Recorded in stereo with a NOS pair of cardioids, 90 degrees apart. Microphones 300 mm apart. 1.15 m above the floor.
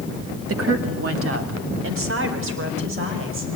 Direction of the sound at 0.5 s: 50° right.